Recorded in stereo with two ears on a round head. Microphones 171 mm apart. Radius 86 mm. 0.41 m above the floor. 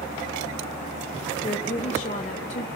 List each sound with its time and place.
1.4 s a woman speaking: 40° left (ahead or behind), 1.1 m